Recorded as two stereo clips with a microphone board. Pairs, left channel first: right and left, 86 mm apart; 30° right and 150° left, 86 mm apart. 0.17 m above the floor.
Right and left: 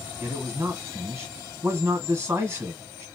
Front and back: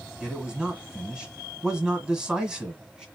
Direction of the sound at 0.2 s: 75° left.